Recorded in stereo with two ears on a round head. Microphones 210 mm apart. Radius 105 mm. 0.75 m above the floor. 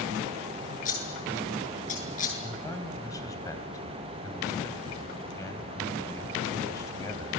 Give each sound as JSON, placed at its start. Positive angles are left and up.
{"t": 0.8, "sound": "scissors", "side_deg": 35, "distance_m": 8.5}
{"t": 2.4, "sound": "a man speaking", "side_deg": 15, "distance_m": 3.5}